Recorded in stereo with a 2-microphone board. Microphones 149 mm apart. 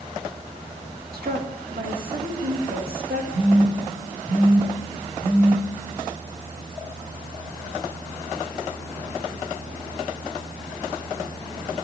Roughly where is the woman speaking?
Right.